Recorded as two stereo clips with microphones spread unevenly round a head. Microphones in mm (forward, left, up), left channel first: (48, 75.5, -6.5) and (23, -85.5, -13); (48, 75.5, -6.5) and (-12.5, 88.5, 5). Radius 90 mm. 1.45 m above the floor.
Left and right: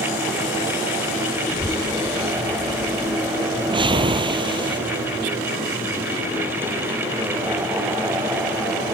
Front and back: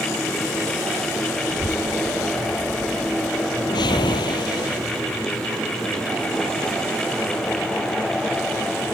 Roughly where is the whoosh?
Ahead right.